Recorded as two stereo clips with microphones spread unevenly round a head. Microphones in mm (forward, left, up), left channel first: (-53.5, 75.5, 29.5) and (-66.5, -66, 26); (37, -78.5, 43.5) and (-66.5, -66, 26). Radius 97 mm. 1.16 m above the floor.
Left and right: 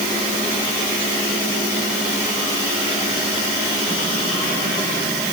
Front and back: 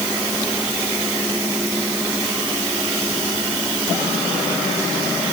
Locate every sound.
Only background noise.